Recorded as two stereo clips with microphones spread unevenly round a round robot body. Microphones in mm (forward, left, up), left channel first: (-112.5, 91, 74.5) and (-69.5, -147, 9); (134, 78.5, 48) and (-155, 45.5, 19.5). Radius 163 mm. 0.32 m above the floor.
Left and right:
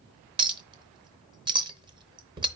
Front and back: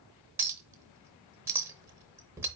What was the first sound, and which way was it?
A clink, 105° right.